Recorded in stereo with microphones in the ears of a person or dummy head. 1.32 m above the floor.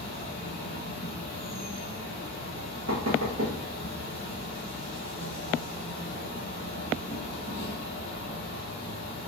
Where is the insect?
40° right (ahead or behind), 1.3 m.